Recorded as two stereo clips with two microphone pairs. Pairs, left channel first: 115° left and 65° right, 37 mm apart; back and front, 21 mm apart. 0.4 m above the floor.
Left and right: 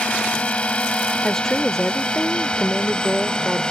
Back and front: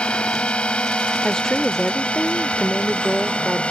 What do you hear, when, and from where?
0.0 s a drone: 160° left; by 3.7 s 175° left
1.2 s a woman speaking: 170° left